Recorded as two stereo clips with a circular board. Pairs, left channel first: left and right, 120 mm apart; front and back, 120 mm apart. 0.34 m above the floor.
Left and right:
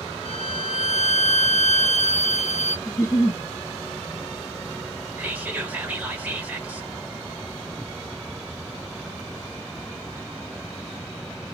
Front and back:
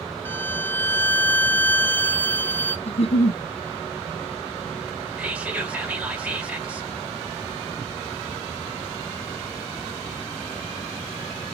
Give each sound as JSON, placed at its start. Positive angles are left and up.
{"t": 0.2, "sound": "a violin", "azimuth_deg": 70, "distance_m": 0.8}
{"t": 2.9, "sound": "a giggle", "azimuth_deg": 30, "distance_m": 0.5}
{"t": 5.2, "sound": "whispering", "azimuth_deg": -125, "distance_m": 1.3}